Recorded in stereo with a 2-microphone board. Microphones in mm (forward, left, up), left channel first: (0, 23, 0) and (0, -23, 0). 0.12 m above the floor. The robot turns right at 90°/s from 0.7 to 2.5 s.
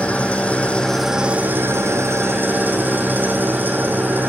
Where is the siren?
I don't hear a siren.